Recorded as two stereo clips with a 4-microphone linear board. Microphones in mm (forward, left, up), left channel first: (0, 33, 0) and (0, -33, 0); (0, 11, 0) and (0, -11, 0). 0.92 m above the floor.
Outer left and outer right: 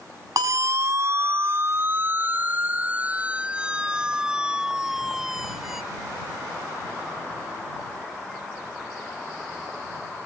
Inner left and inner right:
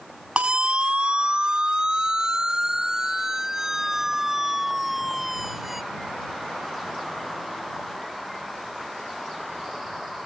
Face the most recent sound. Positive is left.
turn(degrees=-5)  # may be behind; listen again after turning